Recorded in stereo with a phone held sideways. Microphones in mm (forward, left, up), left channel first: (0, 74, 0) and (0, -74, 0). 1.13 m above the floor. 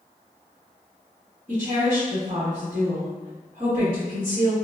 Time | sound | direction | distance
1.5 | a woman speaking | 45° right (ahead or behind) | 1.6 m